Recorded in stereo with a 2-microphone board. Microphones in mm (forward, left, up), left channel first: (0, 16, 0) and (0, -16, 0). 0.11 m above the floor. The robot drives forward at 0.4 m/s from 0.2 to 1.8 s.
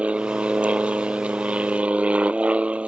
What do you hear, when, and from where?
0.0 s an aircraft: 35° right (ahead or behind); by 2.9 s 40° right (ahead or behind)